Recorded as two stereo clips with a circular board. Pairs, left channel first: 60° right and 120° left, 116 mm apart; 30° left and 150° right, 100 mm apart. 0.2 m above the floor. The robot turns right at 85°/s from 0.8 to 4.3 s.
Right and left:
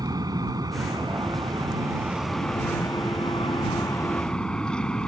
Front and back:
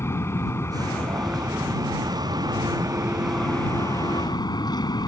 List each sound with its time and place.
0.0 s an aircraft: 80° left; by 5.1 s 20° left